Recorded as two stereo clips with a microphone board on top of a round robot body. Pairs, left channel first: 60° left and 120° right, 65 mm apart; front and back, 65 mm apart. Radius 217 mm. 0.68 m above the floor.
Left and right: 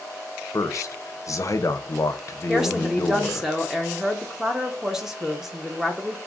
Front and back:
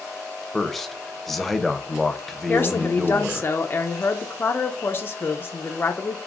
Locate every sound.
0.5 s a man speaking: 85° left, 0.7 m
2.5 s a woman speaking: 40° right, 0.7 m